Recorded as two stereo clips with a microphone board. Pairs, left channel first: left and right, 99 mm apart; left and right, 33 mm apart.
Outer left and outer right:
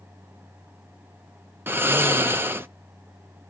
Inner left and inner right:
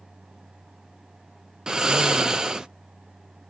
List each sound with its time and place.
1.7 s snoring: 20° right (ahead or behind), 0.5 m